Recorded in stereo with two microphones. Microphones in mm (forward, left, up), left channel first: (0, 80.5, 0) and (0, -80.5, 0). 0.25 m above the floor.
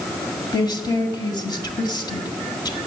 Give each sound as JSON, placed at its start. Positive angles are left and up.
{"t": 0.5, "sound": "a woman speaking", "side_deg": 25, "distance_m": 1.7}